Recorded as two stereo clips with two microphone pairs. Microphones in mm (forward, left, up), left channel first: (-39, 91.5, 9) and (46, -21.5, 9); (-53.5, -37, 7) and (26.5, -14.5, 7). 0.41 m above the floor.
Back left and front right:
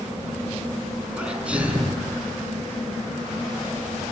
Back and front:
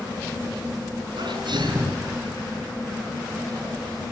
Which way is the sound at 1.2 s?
30° left.